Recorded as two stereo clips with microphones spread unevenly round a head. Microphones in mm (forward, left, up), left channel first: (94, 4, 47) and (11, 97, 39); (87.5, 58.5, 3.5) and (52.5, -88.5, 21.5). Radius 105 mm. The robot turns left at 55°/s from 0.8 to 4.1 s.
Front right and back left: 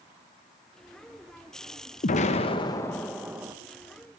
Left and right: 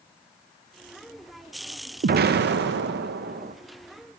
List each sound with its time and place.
2.0 s an explosion: 75° right, 0.7 m; by 3.5 s 160° right, 0.7 m